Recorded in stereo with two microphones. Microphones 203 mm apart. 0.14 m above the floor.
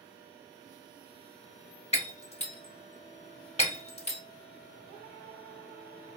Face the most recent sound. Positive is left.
turn(degrees=30)  # may be behind; listen again after turning